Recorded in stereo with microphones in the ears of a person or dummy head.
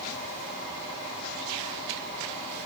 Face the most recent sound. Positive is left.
No sound to turn to.